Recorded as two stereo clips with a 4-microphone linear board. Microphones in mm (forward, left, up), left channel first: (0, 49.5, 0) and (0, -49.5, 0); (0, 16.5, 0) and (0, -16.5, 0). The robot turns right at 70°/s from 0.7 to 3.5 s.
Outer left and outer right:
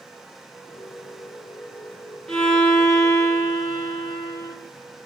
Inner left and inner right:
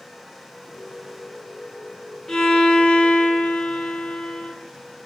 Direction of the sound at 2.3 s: 5° left.